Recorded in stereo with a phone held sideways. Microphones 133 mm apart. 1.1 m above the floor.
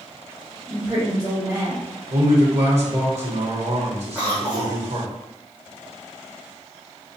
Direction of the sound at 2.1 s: 55° right (ahead or behind).